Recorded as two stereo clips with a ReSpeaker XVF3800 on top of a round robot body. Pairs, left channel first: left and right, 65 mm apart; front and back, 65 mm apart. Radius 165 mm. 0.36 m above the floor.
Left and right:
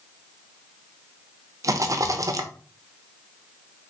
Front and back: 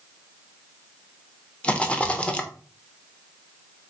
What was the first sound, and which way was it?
A rattle, 70° right.